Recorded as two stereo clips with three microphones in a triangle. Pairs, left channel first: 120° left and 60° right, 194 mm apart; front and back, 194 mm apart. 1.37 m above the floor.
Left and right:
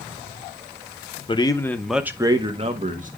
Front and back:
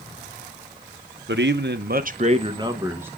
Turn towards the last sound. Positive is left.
turn(degrees=-100)